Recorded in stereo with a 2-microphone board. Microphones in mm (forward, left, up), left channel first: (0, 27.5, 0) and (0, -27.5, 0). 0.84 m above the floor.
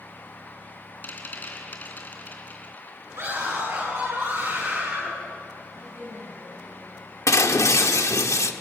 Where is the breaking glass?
80° left, 1.3 m.